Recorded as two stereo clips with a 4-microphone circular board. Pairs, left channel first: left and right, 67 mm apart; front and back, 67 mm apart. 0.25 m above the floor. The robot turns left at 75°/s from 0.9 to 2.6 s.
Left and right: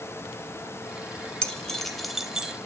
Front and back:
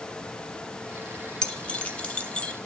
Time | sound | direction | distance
1.4 | keys jangling | 45° left | 0.6 m